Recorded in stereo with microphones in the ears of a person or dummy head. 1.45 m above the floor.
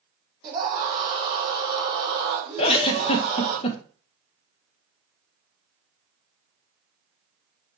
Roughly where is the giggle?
Left.